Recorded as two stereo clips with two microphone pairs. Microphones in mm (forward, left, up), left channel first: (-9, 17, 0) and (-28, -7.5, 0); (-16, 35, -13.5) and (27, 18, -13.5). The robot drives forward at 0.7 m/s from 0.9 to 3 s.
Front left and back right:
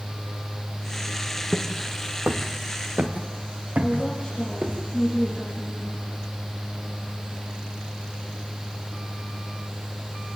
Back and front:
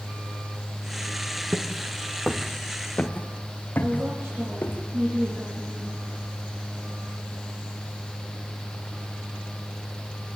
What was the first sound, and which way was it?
Footsteps, 60° right.